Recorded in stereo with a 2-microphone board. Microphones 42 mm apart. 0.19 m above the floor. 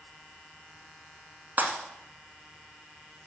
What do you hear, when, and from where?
1.6 s breaking glass: 40° right (ahead or behind), 1.1 m